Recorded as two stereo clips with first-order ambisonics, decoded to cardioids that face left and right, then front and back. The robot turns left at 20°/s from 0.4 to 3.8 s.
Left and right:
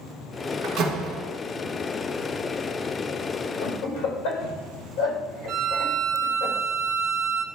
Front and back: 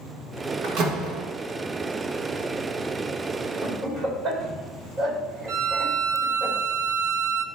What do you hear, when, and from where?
0.6 s a door slam: 135° right, 1.3 m; by 1.3 s 145° right, 1.3 m
3.6 s laughter: 115° left, 4 m; by 6.5 s 110° left, 4 m
5.5 s a violin: 140° right, 0.6 m